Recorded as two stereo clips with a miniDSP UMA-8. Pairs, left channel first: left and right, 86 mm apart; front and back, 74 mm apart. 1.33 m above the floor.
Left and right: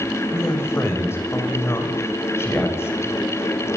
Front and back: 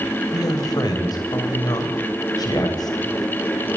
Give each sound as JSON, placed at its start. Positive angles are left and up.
{"t": 0.3, "sound": "a man speaking", "azimuth_deg": 30, "distance_m": 7.0}